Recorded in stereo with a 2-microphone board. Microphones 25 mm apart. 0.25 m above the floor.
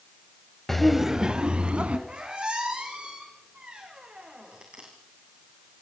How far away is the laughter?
About 0.9 m.